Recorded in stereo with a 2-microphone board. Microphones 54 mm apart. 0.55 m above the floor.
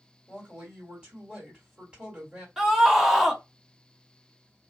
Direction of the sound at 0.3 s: 25° right (ahead or behind).